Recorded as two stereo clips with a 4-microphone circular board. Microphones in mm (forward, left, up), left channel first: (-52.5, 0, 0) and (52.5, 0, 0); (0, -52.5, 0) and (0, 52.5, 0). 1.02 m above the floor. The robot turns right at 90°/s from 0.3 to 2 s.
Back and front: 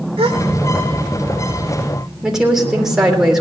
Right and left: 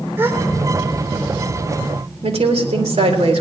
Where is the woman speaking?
85° left, 3 m.